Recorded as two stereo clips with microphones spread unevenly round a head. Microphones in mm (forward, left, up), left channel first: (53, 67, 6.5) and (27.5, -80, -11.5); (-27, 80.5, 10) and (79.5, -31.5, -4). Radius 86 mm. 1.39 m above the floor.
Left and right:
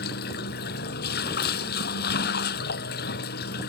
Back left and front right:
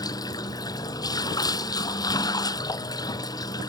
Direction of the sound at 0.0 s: 70° left.